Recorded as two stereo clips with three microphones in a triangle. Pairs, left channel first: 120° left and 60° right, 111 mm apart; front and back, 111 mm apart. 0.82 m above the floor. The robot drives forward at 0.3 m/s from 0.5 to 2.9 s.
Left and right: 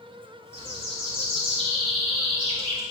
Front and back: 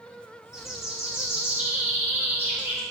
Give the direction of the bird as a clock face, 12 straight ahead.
3 o'clock.